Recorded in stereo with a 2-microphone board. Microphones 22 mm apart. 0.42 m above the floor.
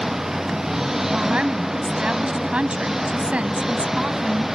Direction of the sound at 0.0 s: 15° right (ahead or behind).